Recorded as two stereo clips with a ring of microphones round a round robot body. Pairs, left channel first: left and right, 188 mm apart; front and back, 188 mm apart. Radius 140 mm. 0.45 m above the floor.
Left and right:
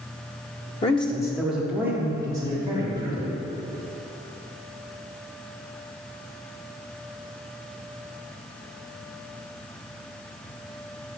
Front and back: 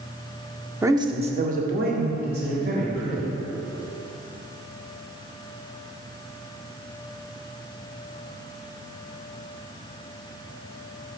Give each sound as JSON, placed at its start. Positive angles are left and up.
{"t": 0.8, "sound": "a man speaking", "azimuth_deg": 110, "distance_m": 0.8}